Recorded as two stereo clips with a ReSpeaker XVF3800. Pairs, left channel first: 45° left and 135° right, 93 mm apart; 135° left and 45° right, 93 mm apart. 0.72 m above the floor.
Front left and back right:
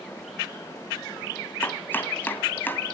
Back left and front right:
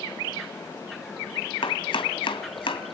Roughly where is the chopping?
Behind left.